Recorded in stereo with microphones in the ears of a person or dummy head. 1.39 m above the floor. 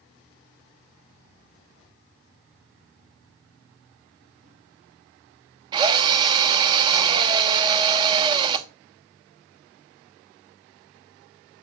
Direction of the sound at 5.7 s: 30° right (ahead or behind).